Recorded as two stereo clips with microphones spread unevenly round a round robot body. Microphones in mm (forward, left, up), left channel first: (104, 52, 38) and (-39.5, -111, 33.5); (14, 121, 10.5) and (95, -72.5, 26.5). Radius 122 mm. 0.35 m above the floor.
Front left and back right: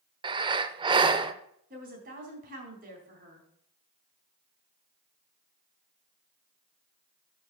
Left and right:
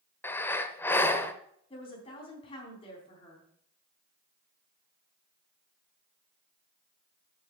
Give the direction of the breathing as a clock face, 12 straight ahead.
6 o'clock.